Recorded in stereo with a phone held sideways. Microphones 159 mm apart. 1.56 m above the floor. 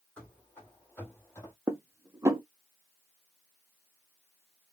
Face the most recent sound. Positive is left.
turn(degrees=-20)  # may be behind; listen again after turning